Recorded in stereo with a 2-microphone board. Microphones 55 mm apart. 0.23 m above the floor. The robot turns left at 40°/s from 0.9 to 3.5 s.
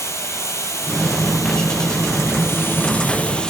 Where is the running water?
120° left, 1.0 m; by 3.5 s 15° left, 1.0 m.